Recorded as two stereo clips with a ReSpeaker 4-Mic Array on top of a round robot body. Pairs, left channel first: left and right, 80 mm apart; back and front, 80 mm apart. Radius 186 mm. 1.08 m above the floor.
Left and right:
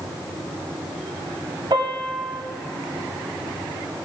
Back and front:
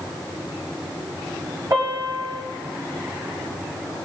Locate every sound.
1.7 s a piano: 50° right, 3 m